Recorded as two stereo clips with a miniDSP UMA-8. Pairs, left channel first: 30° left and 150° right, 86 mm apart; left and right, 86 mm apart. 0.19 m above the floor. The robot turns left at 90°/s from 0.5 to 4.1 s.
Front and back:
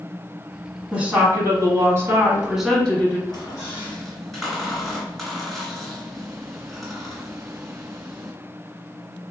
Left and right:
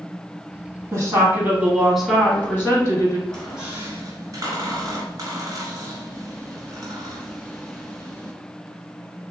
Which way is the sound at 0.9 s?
80° right.